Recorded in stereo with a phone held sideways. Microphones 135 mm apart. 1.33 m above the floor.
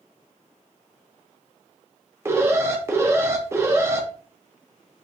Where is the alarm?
20° right (ahead or behind), 0.8 m.